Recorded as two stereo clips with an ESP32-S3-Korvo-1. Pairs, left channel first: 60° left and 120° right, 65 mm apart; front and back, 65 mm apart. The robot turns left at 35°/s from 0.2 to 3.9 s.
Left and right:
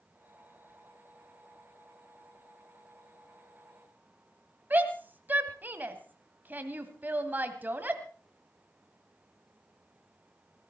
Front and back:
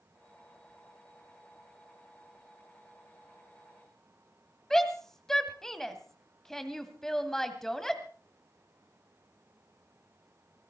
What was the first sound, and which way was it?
A shout, 80° right.